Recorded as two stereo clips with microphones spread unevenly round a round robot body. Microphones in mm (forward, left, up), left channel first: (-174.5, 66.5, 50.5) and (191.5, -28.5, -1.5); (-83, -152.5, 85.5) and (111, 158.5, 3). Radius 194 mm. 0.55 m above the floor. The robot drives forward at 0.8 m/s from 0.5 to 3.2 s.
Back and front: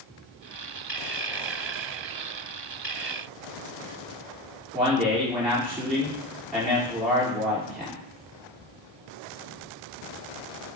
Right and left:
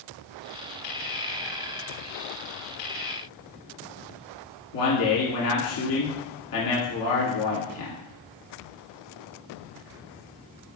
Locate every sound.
4.7 s a man speaking: 95° right, 1.8 m